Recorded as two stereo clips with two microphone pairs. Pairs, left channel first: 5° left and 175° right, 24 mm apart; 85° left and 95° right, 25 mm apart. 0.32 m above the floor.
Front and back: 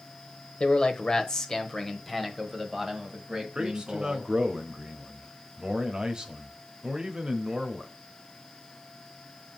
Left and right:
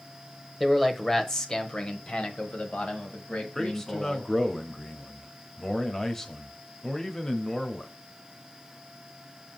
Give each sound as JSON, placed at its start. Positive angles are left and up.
{"t": 0.6, "sound": "a man speaking", "azimuth_deg": 0, "distance_m": 1.1}
{"t": 3.5, "sound": "a man speaking", "azimuth_deg": 155, "distance_m": 1.1}